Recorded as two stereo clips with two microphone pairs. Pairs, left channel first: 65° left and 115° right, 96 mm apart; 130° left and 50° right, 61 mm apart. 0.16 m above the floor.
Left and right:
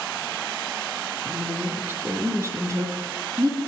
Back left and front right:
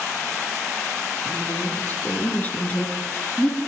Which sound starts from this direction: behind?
A woman speaking, at 1.2 s.